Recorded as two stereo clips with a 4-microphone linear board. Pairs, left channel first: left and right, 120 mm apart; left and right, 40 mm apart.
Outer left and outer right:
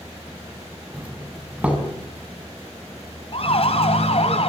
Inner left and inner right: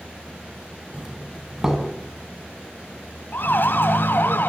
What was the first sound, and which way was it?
A doorbell, 10° right (ahead or behind).